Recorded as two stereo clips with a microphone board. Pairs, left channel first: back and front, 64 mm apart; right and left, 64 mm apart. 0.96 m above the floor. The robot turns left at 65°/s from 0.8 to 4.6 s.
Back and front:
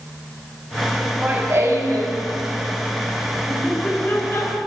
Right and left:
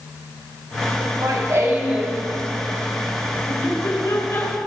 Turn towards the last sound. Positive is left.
turn(degrees=-155)